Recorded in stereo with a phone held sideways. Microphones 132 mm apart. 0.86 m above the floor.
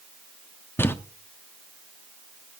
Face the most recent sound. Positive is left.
turn(degrees=15)  # may be behind; listen again after turning